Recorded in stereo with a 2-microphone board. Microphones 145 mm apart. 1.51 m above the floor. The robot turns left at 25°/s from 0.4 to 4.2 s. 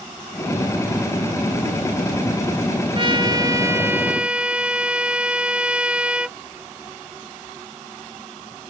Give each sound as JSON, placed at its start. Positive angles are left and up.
{"t": 3.0, "sound": "a trumpet", "azimuth_deg": -140}